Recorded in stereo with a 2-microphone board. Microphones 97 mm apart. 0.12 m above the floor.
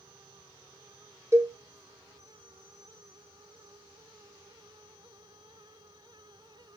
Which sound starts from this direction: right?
A cowbell, at 1.3 s.